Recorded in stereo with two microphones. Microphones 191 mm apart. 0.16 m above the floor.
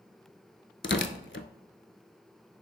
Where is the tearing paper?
70° left (ahead or behind), 0.7 m.